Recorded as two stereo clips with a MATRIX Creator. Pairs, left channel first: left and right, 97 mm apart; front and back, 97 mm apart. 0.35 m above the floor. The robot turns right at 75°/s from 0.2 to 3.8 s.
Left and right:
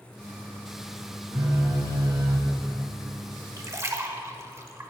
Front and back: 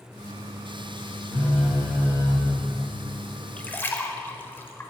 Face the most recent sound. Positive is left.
turn(degrees=-50)